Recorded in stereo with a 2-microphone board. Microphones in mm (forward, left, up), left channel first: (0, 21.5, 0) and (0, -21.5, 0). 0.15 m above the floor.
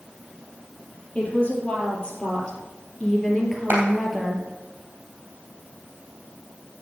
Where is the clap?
50° right (ahead or behind), 3.5 m.